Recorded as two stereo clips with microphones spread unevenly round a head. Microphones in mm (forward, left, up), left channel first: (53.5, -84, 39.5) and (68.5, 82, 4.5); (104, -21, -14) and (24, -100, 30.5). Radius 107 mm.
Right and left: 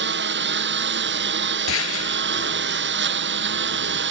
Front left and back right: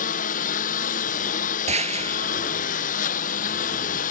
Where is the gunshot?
115° right.